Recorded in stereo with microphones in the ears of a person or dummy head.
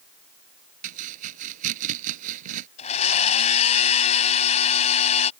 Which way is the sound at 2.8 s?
40° left (ahead or behind).